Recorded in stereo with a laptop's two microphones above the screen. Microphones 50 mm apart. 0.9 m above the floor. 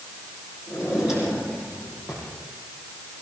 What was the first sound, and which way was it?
A drawer, 10° right (ahead or behind).